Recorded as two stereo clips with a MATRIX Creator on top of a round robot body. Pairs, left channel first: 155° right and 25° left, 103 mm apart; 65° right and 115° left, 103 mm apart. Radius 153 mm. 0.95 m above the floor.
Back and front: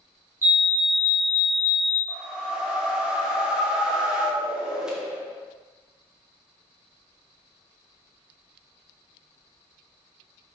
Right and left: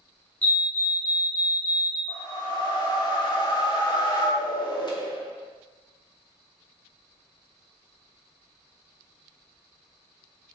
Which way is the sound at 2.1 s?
55° right.